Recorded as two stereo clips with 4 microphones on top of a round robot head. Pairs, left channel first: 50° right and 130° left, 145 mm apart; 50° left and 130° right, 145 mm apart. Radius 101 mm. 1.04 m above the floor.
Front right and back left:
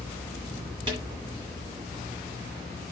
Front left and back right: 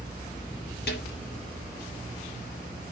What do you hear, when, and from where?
0.9 s a snare drum: 70° left, 6.5 m